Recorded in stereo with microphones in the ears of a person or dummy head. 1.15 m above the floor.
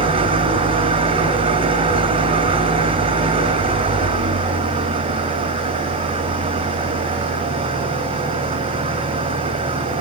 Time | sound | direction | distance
0.0 | an engine running | 30° right (ahead or behind) | 1.8 m